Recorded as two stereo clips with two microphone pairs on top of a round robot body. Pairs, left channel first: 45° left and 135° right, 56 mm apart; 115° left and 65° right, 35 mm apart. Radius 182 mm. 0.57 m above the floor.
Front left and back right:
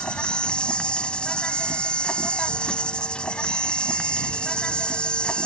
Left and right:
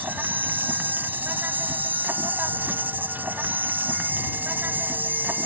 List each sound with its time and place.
0.0 s an insect: 30° right